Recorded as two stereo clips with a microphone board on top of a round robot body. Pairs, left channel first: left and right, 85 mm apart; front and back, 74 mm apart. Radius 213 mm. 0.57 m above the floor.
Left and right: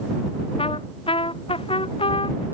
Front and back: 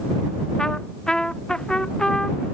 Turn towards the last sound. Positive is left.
turn(degrees=80)